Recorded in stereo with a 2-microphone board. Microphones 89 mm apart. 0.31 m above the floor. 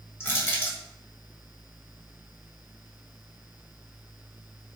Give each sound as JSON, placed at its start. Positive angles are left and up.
{"t": 0.2, "sound": "crushing", "side_deg": 30, "distance_m": 1.7}